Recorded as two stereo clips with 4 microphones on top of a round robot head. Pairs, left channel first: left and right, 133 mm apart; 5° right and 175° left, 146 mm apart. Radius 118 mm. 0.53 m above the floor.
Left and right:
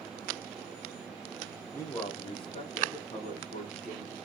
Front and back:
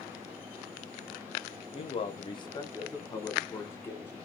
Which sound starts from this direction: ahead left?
A man speaking, at 1.7 s.